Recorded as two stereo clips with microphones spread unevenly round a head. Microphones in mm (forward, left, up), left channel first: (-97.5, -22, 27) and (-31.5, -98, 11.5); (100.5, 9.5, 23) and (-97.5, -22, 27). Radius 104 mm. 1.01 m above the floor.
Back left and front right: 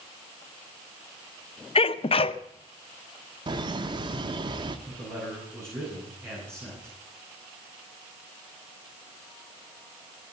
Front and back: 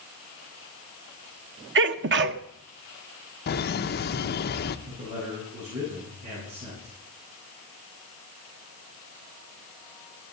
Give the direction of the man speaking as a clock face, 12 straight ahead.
4 o'clock.